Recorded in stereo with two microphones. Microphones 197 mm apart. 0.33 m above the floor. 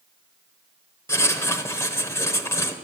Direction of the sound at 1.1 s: 15° left (ahead or behind).